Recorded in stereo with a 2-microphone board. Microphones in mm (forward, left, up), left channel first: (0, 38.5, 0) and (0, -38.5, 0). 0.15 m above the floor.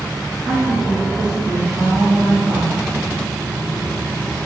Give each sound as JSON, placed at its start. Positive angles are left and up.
{"t": 0.4, "sound": "a woman speaking", "side_deg": -10, "distance_m": 1.8}